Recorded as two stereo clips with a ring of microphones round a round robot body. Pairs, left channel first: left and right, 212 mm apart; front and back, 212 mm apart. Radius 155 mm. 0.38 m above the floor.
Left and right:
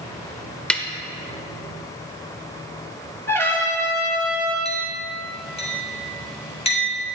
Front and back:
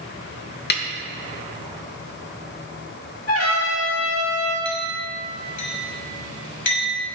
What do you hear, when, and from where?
0.7 s a snare drum: 5° left, 1.0 m
3.3 s a trumpet: 10° left, 4 m
4.7 s a clink: 30° left, 3 m